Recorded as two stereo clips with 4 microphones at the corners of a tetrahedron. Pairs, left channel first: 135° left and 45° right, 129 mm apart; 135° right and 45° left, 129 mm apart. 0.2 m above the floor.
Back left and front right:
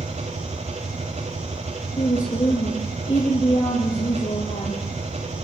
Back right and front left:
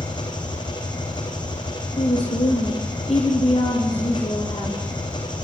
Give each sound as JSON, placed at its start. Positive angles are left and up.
{"t": 0.0, "sound": "an engine running", "azimuth_deg": -80, "distance_m": 4.5}
{"t": 2.0, "sound": "a woman speaking", "azimuth_deg": 180, "distance_m": 4.5}